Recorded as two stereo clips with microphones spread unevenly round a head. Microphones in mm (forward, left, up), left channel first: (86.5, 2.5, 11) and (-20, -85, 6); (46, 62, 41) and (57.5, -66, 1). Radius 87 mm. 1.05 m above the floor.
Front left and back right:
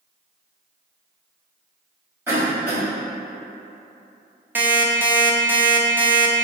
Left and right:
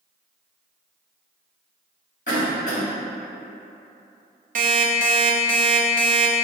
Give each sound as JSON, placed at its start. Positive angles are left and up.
{"t": 2.3, "sound": "a cough", "azimuth_deg": 145, "distance_m": 1.8}
{"t": 4.5, "sound": "an alarm clock", "azimuth_deg": -65, "distance_m": 0.6}